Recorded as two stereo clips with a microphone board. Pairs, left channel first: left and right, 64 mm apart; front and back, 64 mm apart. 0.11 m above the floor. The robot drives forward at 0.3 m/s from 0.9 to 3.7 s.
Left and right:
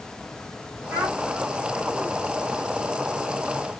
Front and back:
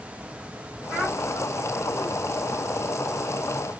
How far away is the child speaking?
About 2 m.